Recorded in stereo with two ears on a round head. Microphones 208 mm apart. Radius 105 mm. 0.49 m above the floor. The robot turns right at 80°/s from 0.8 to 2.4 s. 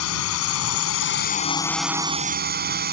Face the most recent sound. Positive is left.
turn(degrees=-135)